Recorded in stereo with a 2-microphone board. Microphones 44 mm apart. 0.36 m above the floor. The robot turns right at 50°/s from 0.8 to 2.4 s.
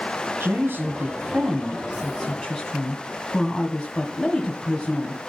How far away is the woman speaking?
About 2 m.